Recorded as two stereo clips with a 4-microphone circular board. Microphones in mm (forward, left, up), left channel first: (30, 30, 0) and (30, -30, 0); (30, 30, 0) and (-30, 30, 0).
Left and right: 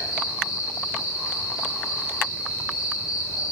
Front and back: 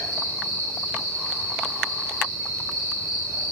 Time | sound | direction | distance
0.0 | an insect | 15° right | 1.0 m